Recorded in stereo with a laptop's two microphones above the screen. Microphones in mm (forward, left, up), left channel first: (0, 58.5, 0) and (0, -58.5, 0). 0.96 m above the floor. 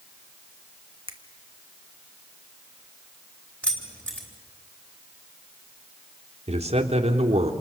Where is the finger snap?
50° right (ahead or behind), 1.3 m.